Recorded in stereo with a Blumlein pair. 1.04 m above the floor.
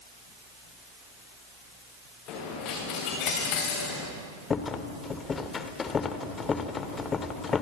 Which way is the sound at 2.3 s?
40° left.